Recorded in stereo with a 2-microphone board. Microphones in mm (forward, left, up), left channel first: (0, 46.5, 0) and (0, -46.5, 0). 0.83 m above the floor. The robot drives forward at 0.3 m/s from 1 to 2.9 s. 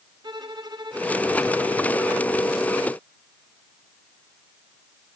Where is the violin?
45° right (ahead or behind), 2.5 m; by 2.4 s 40° right (ahead or behind), 2.5 m.